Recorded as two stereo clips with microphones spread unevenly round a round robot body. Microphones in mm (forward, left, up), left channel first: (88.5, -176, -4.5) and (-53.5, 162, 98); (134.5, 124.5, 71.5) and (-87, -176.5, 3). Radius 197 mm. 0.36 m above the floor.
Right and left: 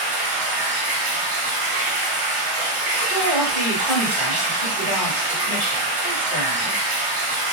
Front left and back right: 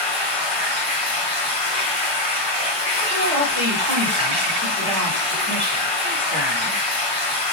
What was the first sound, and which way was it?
Running water, 150° left.